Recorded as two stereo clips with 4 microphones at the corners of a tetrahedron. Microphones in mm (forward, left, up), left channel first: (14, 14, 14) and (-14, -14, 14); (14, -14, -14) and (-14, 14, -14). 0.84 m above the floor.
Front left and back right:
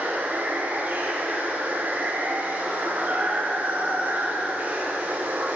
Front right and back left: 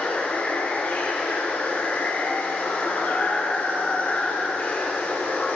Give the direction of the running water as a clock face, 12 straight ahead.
3 o'clock.